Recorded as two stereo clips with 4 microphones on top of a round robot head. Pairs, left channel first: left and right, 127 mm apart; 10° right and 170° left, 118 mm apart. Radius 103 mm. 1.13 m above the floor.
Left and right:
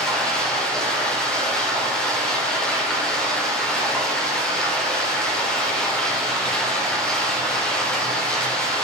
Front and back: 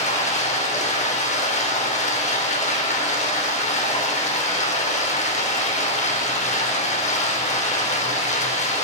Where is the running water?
5° left, 4 m.